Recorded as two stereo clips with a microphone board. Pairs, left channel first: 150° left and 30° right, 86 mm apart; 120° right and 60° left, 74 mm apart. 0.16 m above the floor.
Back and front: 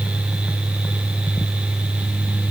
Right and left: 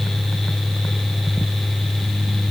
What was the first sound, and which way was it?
Only background noise.